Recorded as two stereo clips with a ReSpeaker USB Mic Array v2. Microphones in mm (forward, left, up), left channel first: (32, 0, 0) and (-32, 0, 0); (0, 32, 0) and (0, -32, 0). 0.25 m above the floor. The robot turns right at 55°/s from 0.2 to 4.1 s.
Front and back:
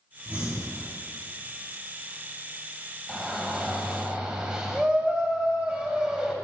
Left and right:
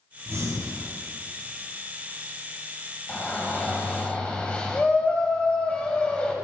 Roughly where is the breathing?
Behind right.